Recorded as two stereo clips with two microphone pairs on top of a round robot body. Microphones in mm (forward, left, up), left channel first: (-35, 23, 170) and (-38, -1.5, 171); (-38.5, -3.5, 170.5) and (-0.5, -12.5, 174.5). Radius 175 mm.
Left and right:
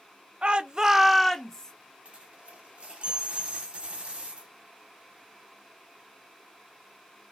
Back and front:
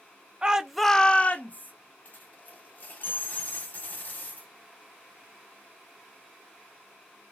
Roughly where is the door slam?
I don't hear a door slam.